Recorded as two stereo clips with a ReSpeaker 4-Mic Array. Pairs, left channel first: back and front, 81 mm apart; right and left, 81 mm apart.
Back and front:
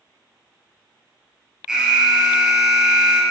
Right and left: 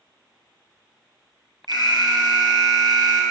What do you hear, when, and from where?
1.7 s an alarm: 80° left, 2 m